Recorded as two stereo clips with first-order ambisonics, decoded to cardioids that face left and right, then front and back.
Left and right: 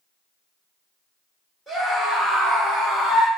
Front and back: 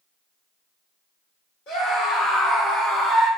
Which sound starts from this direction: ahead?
A scream, at 1.7 s.